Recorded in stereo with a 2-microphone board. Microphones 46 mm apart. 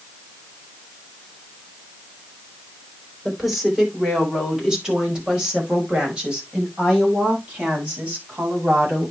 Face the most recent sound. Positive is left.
turn(degrees=-30)  # may be behind; listen again after turning